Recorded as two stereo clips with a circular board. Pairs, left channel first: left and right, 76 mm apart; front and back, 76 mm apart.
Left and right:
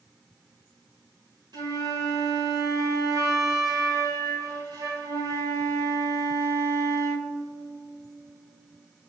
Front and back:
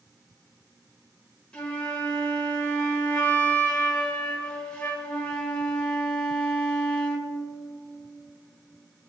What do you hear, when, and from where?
1.5 s a flute: 80° right, 3 m